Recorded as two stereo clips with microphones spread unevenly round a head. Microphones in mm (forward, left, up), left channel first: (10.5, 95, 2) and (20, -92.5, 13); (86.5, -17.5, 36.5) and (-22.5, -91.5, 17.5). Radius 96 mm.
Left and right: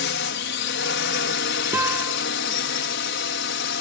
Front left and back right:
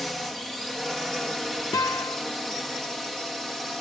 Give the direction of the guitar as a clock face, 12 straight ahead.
1 o'clock.